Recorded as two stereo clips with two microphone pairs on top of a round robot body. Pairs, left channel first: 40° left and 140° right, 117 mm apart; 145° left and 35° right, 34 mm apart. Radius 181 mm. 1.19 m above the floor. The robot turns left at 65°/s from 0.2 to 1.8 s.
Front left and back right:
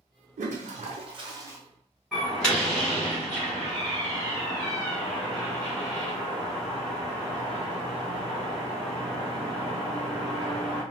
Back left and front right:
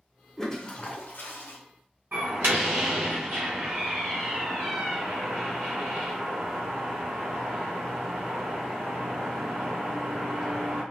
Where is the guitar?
I don't hear a guitar.